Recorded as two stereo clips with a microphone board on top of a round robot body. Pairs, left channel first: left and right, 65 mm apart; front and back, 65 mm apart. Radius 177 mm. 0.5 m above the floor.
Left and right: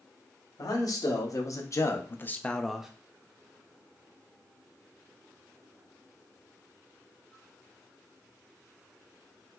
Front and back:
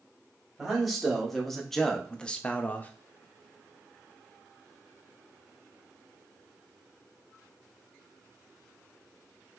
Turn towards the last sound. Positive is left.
turn(degrees=-25)